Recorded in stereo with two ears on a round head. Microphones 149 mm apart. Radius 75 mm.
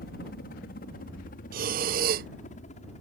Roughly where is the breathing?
Right.